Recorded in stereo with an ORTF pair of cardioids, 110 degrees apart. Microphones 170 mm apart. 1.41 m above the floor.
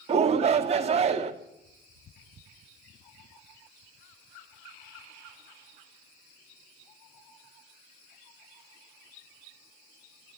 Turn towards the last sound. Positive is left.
turn(degrees=-40)